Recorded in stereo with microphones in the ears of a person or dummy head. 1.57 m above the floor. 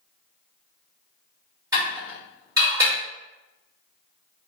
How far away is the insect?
I don't hear an insect.